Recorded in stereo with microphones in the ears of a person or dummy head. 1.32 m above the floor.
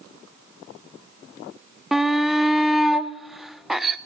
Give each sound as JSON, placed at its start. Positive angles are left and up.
{"t": 1.9, "sound": "a shout", "side_deg": 0, "distance_m": 0.5}